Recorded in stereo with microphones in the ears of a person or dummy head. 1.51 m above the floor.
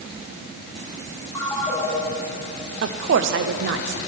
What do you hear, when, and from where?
1.4 s a ringtone: 15° left (ahead or behind), 1.7 m
2.8 s a woman speaking: 60° right (ahead or behind), 0.5 m